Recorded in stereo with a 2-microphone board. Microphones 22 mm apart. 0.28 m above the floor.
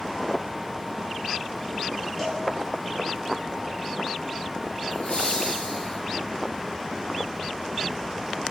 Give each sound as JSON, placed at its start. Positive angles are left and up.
{"t": 2.2, "sound": "a cowbell", "side_deg": 15, "distance_m": 6.0}
{"t": 4.9, "sound": "laughter", "side_deg": 65, "distance_m": 3.5}